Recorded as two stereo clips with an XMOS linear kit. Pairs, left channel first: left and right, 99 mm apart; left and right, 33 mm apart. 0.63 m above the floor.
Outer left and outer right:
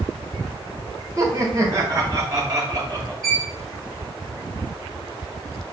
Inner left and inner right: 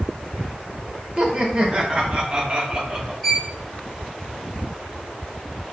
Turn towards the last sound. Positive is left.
turn(degrees=5)  # may be behind; listen again after turning